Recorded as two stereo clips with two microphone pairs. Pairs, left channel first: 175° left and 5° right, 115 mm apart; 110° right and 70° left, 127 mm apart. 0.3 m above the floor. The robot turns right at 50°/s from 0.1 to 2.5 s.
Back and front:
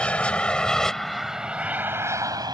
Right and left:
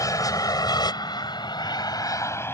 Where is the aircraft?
120° right; by 2.5 s 45° right.